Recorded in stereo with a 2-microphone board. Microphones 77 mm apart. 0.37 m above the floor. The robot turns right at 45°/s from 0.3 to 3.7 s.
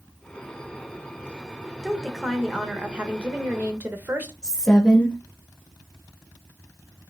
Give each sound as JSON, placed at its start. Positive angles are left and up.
{"t": 1.8, "sound": "a woman speaking", "side_deg": 5, "distance_m": 0.8}
{"t": 4.4, "sound": "a woman speaking", "side_deg": 10, "distance_m": 1.0}